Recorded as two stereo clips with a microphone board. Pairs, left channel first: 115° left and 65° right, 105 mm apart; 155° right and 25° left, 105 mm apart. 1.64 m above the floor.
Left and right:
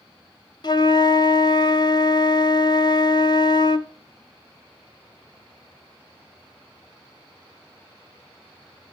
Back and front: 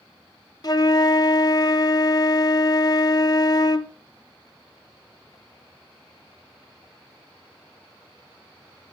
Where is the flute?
155° left, 0.7 m.